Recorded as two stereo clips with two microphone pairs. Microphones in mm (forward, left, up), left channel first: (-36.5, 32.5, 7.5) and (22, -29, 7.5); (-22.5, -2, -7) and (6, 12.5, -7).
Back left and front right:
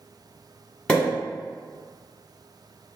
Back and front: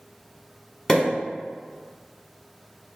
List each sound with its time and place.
0.9 s a pop: 175° right, 1.4 m